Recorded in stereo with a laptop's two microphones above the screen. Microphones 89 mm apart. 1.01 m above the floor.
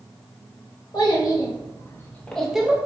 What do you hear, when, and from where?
0.9 s a child speaking: 60° left (ahead or behind), 1.1 m; by 2.8 s 15° right (ahead or behind), 0.6 m